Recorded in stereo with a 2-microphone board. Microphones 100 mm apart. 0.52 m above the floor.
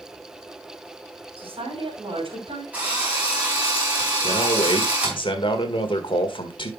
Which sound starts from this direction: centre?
A drill, at 2.7 s.